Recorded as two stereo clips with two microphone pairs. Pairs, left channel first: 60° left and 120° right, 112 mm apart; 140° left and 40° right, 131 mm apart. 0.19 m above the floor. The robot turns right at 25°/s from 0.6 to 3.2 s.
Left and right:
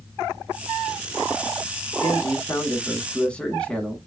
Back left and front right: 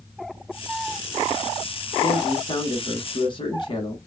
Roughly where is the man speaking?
Left.